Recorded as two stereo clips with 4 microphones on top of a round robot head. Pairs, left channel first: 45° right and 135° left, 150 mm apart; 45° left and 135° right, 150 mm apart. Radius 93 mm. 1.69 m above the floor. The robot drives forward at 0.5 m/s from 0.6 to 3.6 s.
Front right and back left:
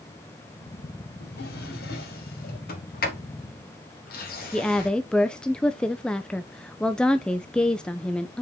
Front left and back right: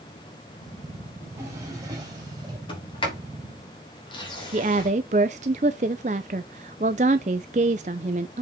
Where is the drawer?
60° right, 3.5 m; by 2.6 s 70° right, 3.5 m.